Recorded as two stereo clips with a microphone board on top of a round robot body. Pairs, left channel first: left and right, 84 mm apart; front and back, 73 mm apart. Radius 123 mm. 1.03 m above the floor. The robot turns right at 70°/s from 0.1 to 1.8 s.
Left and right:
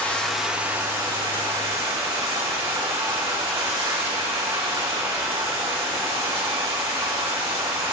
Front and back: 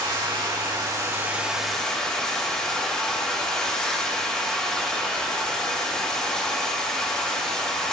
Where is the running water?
160° left, 3 m; by 7.9 s 80° right, 3 m.